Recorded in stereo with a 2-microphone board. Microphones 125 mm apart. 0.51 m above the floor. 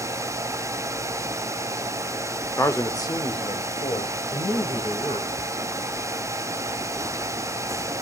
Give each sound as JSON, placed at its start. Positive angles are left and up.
{"t": 2.6, "sound": "a man speaking", "side_deg": 20, "distance_m": 1.1}